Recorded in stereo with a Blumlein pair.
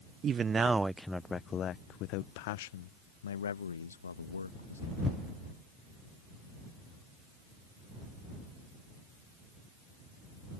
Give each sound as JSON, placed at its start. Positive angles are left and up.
{"t": 0.2, "sound": "a man speaking", "azimuth_deg": -25}